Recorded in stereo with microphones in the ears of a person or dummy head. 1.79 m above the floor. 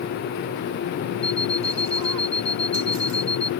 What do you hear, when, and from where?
1.2 s an alarm clock: 15° left (ahead or behind)